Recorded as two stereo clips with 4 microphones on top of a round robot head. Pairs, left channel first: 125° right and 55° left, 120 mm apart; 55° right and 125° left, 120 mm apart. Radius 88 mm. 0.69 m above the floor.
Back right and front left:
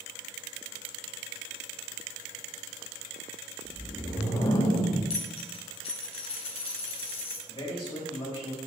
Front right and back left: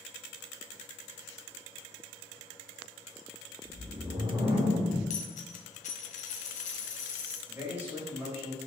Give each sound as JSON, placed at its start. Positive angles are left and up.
{"t": 3.6, "sound": "a whoosh", "azimuth_deg": 180, "distance_m": 2.5}
{"t": 5.1, "sound": "a dropped coin", "azimuth_deg": -80, "distance_m": 1.4}
{"t": 7.5, "sound": "a man speaking", "azimuth_deg": -165, "distance_m": 4.0}